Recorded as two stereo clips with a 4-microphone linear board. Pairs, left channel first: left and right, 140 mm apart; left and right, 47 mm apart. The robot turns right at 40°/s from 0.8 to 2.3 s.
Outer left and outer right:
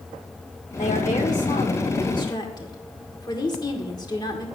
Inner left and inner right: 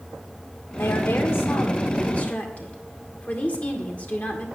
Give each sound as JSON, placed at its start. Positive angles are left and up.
{"t": 0.8, "sound": "a woman speaking", "azimuth_deg": 85, "distance_m": 2.0}